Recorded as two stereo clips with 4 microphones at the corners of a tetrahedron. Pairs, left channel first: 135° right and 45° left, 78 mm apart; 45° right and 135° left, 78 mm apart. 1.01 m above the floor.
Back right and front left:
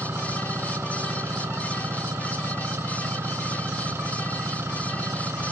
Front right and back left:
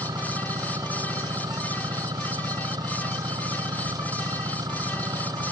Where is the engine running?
100° left.